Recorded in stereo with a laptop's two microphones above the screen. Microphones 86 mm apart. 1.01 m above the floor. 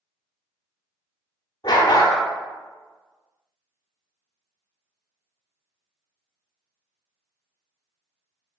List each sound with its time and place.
1.6 s a dog barking: 50° left (ahead or behind), 0.8 m